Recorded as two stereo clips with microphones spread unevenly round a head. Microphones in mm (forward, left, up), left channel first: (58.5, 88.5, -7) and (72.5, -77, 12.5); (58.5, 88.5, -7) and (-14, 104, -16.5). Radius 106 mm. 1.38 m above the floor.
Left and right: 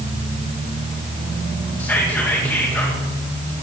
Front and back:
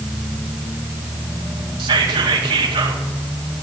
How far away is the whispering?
About 1.9 m.